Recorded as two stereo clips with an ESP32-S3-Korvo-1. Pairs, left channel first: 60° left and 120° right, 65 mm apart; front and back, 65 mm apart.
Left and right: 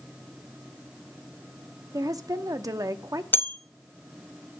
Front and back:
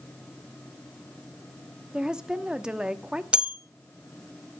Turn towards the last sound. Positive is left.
turn(degrees=110)